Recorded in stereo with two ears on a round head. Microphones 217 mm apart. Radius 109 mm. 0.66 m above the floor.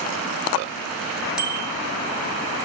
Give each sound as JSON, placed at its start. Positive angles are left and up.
{"t": 1.4, "sound": "a bicycle bell", "side_deg": -5, "distance_m": 4.5}